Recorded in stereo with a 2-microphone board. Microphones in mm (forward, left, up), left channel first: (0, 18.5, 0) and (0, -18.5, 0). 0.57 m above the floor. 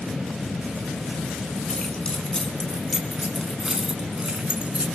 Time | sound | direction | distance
1.7 | keys jangling | 30° left (ahead or behind) | 4.5 m